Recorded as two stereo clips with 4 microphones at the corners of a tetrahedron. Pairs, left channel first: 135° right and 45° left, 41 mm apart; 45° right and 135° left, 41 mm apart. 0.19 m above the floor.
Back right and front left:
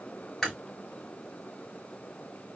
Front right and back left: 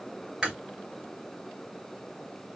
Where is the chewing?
170° left, 1.4 m.